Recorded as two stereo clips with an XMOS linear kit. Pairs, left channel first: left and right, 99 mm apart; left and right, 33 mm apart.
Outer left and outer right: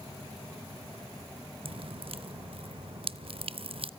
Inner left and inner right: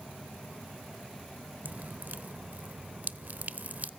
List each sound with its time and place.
1.6 s dripping: 60° right (ahead or behind), 0.5 m